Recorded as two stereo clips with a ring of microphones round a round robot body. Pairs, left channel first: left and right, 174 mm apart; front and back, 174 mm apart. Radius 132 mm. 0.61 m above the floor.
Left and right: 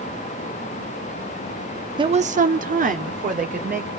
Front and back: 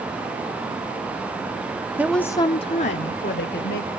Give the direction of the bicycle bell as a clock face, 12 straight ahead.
I don't hear a bicycle bell.